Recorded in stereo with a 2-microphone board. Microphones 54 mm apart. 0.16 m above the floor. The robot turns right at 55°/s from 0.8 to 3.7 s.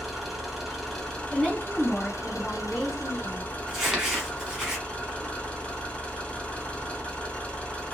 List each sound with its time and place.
0.0 s an engine running: straight ahead, 1.5 m; by 7.9 s 155° left, 1.5 m
1.3 s a woman speaking: centre (ahead or behind), 1.0 m; by 3.4 s 15° left (ahead or behind), 1.0 m
3.7 s crumpling: 10° right (ahead or behind), 1.2 m